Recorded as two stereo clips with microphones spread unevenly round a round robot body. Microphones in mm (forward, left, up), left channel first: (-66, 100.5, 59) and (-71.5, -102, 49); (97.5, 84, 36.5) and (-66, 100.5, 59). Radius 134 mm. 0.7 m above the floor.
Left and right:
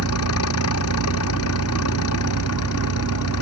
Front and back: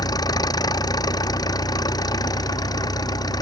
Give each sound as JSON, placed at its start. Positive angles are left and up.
{"t": 0.0, "sound": "an engine running", "azimuth_deg": 60}